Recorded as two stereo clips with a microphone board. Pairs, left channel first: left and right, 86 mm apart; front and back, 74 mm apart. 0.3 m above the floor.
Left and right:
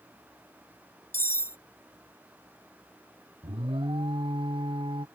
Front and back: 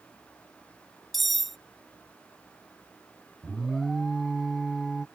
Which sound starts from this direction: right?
An alarm, at 3.4 s.